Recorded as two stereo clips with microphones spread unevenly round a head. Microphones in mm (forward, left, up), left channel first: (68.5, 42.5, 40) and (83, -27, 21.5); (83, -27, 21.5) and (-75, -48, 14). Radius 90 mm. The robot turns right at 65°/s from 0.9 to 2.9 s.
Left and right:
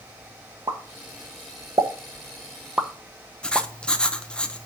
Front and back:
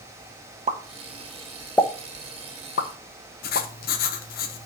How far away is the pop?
About 1.2 m.